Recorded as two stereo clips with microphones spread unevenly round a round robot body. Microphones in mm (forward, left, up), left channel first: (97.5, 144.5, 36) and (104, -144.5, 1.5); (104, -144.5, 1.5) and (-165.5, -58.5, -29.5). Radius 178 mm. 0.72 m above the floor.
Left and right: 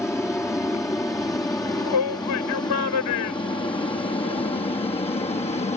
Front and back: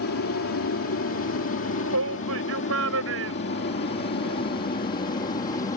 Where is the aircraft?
5° left; by 5.8 s 35° left.